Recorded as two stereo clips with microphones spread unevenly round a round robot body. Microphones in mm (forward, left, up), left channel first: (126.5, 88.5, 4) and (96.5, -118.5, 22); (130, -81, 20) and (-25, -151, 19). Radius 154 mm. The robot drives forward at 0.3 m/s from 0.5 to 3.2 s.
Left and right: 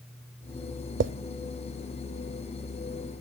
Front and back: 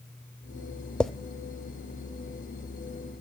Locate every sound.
1.0 s a drawer: 60° right, 0.5 m; by 1.1 s 65° right, 0.5 m